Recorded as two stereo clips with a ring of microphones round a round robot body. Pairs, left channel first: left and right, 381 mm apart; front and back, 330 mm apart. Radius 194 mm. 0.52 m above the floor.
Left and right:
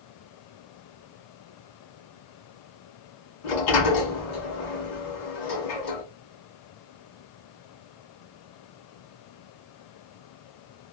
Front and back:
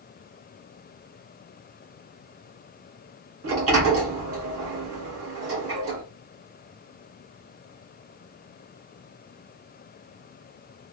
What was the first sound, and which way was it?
A sliding door, 130° left.